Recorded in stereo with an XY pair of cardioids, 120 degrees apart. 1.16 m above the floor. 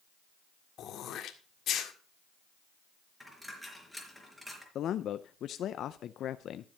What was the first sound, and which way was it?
Throat clearing, 60° left.